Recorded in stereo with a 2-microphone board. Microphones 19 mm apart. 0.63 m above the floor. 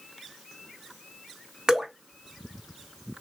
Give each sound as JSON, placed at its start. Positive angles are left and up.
{"t": 1.7, "sound": "dripping", "side_deg": -35, "distance_m": 0.9}